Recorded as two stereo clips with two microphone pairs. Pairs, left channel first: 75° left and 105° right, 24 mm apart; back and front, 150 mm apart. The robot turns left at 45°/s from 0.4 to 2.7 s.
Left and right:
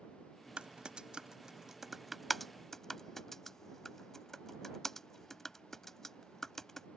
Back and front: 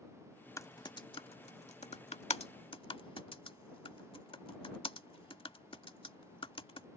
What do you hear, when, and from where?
0.6 s typing on a keyboard: 120° right; by 6.9 s 145° left